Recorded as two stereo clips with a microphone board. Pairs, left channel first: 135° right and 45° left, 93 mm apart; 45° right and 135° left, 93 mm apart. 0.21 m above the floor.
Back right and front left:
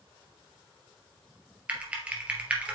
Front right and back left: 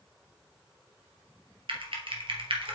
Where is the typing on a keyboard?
120° left, 2.5 m.